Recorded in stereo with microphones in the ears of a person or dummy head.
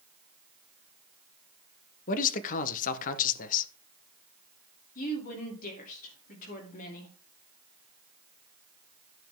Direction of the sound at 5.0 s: 45° left (ahead or behind).